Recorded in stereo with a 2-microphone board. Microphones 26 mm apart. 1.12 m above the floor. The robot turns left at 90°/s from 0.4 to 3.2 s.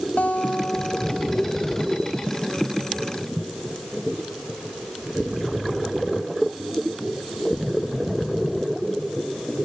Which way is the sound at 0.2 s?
75° left.